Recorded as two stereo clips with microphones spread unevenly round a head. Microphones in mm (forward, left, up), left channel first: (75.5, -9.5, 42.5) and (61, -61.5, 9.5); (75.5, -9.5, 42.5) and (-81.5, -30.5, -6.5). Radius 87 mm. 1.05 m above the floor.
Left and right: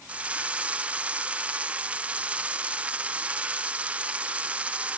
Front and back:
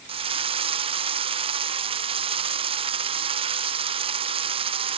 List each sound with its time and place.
0.1 s a drill: 140° right, 0.8 m